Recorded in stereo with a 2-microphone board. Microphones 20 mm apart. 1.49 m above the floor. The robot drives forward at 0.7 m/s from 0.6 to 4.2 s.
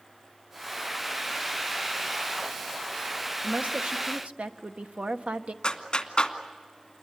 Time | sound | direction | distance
3.4 | a woman speaking | 80° right | 1.1 m
5.6 | a clap | 45° left (ahead or behind) | 2 m